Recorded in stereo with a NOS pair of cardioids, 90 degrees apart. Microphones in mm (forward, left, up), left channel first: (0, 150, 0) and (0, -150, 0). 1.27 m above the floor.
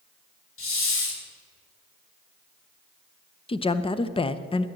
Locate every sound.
0.6 s a hiss: 45° left, 2.5 m
3.5 s a woman speaking: 20° left, 0.7 m